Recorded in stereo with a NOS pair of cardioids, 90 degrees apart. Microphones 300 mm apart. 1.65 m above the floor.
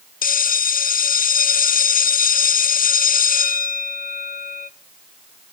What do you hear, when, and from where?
0.2 s a bell: 30° left, 0.6 m